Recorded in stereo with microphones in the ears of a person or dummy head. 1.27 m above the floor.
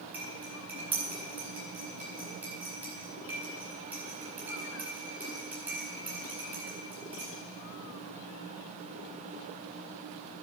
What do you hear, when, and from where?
0.1 s cutlery clinking: 10° right (ahead or behind), 5.5 m